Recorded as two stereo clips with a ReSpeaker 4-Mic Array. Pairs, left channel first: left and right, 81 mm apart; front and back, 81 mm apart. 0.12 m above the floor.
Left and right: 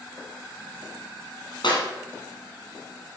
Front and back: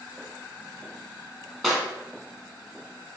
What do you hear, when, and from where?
1.6 s a clap: 85° left, 2.5 m